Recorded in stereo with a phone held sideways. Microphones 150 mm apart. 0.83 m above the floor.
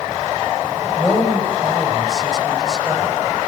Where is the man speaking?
Centre (ahead or behind), 5 m.